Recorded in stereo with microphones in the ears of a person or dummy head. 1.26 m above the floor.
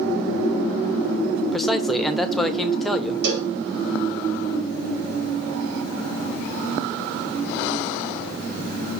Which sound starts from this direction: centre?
A man speaking, at 1.5 s.